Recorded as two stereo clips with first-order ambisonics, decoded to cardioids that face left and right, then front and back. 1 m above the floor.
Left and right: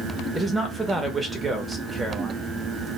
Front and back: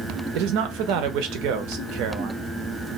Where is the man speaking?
170° right, 0.6 m.